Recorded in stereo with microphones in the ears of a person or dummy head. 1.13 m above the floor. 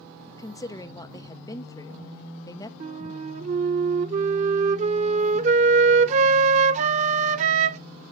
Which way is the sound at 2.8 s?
40° right (ahead or behind).